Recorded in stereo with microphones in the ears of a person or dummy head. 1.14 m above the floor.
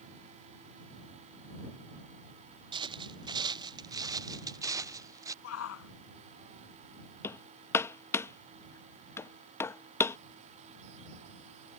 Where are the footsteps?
25° right (ahead or behind); by 5.3 s 15° right (ahead or behind).